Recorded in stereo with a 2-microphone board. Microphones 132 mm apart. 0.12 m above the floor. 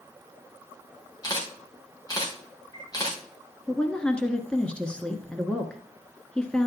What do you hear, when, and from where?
1.2 s a camera shutter: 30° left (ahead or behind), 3 m
3.7 s a woman speaking: 10° left (ahead or behind), 1.1 m